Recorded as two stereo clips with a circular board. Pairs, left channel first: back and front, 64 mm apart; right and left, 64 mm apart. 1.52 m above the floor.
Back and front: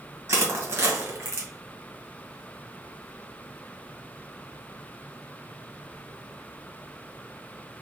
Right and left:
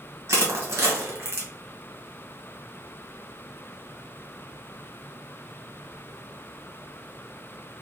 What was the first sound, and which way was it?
Crushing, 45° left.